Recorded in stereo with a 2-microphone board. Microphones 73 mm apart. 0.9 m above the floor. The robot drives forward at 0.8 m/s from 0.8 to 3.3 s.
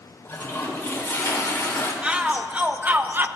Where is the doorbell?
I don't hear a doorbell.